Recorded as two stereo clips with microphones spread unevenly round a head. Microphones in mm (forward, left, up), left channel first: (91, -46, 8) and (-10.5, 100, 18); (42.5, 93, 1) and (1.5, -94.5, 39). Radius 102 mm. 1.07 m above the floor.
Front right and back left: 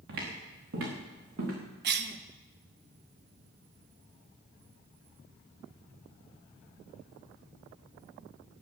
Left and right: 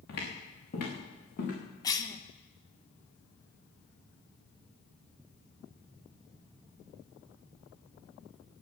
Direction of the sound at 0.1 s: 125° left.